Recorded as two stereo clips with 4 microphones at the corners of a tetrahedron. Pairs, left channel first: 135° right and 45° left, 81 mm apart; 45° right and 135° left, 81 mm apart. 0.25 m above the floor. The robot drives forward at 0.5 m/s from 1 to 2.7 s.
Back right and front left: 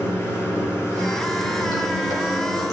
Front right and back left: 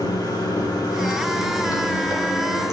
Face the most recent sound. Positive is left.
turn(degrees=-100)